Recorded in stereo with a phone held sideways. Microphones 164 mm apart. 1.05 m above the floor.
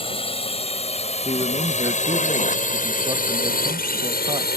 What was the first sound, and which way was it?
A drone, 30° left (ahead or behind).